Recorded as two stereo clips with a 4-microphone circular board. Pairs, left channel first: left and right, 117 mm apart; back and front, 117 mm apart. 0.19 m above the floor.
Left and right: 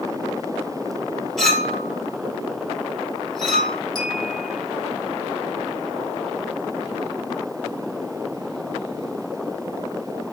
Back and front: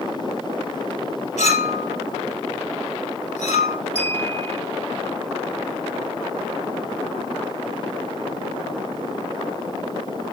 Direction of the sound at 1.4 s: 175° left.